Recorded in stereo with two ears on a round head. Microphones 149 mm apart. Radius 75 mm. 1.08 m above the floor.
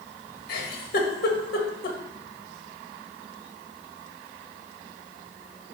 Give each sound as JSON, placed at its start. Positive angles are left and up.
{"t": 0.5, "sound": "a giggle", "side_deg": 60, "distance_m": 1.6}